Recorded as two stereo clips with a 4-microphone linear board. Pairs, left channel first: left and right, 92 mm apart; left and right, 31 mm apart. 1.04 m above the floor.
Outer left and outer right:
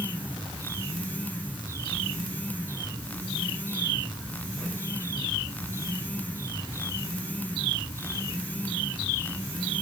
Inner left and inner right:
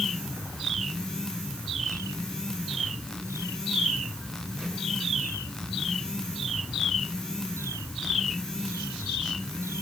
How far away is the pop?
I don't hear a pop.